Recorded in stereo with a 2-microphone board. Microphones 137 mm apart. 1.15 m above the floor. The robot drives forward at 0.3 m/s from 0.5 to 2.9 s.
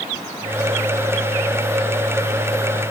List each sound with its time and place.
Only background noise.